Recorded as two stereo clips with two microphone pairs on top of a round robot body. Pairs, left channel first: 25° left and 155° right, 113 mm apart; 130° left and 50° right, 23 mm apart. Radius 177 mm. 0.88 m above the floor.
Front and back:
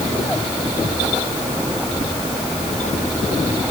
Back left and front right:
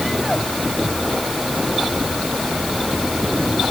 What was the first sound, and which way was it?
Only background noise.